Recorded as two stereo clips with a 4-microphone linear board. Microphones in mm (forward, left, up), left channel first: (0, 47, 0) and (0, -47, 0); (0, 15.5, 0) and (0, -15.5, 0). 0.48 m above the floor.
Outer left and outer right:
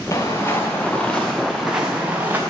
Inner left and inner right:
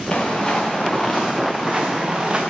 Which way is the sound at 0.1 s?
35° left (ahead or behind).